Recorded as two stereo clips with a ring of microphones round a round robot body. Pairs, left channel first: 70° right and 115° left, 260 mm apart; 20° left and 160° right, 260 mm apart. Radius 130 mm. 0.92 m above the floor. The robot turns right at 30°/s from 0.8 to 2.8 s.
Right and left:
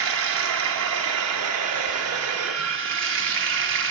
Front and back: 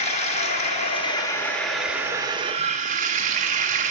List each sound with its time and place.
0.0 s running water: 85° left, 0.7 m; by 3.9 s 145° left, 0.7 m